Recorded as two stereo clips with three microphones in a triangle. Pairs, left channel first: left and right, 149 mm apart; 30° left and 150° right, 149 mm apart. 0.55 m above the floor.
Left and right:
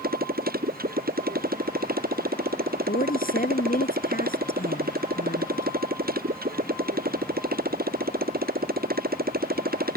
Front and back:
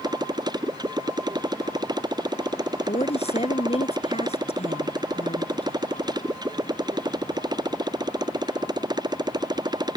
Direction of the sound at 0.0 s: 85° right.